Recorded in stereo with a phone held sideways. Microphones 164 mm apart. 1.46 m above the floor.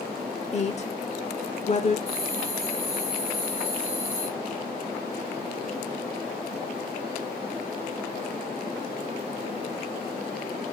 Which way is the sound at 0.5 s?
45° left (ahead or behind).